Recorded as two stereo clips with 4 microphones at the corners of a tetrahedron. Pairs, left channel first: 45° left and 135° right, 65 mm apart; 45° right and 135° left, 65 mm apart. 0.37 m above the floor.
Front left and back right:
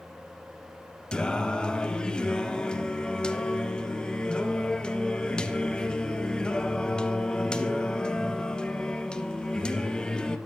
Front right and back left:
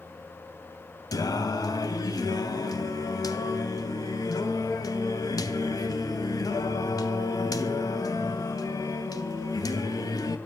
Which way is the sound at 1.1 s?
30° right.